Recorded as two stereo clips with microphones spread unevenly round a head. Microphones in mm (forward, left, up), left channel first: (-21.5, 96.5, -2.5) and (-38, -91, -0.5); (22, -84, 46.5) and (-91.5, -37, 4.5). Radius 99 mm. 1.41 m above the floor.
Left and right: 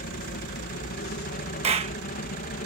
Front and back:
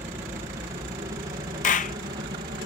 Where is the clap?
35° right.